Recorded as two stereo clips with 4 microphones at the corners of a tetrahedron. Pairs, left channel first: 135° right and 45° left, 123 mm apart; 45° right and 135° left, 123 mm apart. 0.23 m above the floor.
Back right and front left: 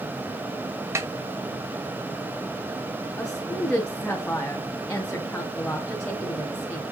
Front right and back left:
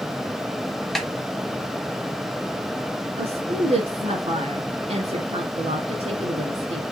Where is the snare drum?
40° left, 1.5 m.